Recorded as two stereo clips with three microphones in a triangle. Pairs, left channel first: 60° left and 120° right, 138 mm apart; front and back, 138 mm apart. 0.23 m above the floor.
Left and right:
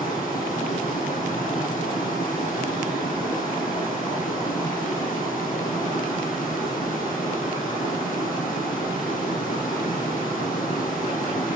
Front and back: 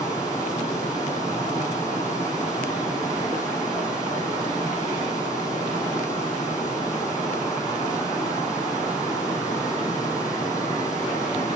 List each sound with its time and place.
0.0 s running water: 65° left, 4 m